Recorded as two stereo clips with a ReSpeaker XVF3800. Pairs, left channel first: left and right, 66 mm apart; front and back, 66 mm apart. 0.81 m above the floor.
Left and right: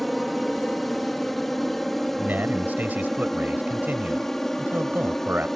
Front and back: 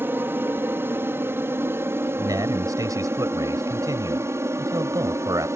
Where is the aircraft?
175° left; by 5.6 s 170° left.